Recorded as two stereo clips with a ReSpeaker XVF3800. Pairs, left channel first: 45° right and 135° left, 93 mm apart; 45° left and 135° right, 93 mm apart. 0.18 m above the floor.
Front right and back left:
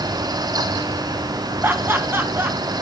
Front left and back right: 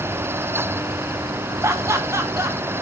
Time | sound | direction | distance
1.6 | laughter | 170° right | 1.3 m